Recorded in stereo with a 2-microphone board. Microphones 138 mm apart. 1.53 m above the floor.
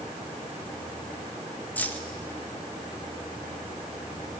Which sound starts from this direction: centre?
Keys jangling, at 1.8 s.